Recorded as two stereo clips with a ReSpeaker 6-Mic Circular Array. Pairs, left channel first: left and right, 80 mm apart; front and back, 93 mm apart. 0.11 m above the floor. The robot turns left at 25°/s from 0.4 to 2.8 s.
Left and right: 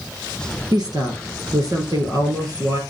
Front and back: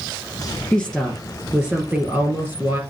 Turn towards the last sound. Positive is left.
turn(degrees=-130)